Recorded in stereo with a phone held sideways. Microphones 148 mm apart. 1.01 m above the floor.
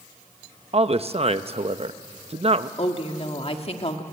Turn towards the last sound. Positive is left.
turn(degrees=45)  # may be behind; listen again after turning